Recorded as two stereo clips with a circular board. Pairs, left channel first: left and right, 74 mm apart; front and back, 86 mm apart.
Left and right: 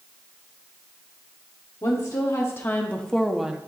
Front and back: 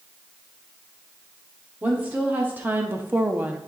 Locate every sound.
1.8 s a woman speaking: 115° left, 1.3 m; by 3.6 s 140° right, 0.7 m